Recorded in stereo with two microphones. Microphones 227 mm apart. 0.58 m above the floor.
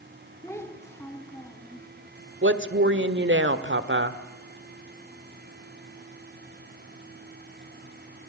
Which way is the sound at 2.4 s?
55° right (ahead or behind).